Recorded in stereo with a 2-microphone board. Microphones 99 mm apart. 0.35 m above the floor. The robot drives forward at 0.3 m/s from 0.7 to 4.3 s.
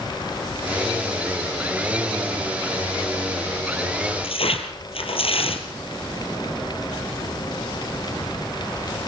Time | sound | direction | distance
4.2 | tearing paper | 70° left (ahead or behind) | 3.5 m